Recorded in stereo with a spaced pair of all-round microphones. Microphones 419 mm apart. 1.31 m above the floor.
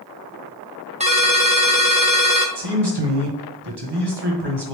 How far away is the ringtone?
About 0.7 m.